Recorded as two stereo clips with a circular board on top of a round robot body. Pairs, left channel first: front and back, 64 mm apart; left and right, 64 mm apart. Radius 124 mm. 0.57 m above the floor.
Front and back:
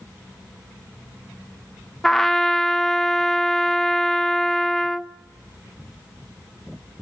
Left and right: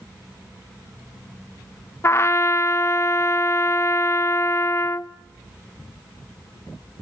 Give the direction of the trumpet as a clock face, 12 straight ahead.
9 o'clock.